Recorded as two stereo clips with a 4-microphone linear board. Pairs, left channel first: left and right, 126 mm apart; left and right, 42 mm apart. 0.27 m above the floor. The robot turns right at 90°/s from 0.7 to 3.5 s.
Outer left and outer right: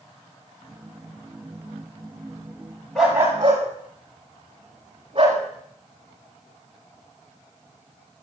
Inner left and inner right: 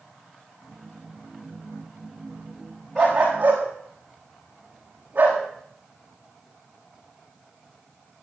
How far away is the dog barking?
About 6.5 m.